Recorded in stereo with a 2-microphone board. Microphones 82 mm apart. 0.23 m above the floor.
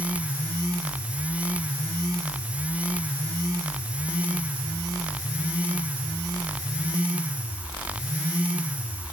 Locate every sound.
Only background noise.